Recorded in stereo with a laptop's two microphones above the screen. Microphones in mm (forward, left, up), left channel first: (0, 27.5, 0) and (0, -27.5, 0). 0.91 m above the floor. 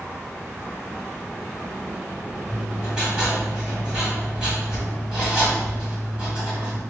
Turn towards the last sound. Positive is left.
turn(degrees=-15)  # may be behind; listen again after turning